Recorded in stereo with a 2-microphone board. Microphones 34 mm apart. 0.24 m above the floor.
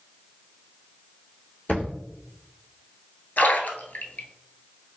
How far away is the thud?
About 1.1 m.